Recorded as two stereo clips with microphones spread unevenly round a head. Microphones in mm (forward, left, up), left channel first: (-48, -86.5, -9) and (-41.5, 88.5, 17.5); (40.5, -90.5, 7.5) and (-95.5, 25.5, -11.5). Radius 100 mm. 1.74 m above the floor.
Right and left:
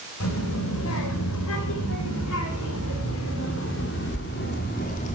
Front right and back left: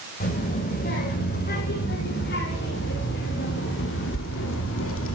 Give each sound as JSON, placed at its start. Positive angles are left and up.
{"t": 0.2, "sound": "a child speaking", "azimuth_deg": -80, "distance_m": 6.5}